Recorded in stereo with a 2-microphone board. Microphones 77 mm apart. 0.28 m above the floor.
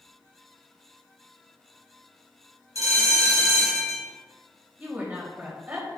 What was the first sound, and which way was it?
A bell, 50° right (ahead or behind).